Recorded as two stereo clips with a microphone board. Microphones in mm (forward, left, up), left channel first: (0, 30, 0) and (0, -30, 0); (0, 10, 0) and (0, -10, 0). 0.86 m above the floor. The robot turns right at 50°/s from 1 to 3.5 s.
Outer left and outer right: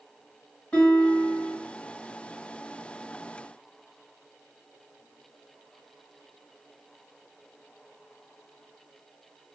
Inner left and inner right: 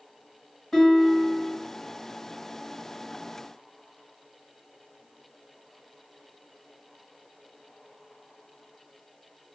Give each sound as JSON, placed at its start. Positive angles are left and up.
{"t": 0.7, "sound": "a guitar", "side_deg": 25, "distance_m": 1.5}